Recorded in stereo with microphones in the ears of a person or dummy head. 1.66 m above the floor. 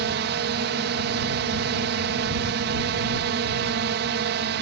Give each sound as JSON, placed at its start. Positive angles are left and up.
{"t": 0.0, "sound": "a drone", "side_deg": -60}